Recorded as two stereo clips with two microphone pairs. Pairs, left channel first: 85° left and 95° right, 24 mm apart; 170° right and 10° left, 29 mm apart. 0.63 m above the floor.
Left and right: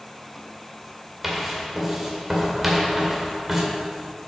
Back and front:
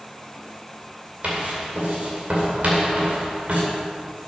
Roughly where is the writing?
Ahead.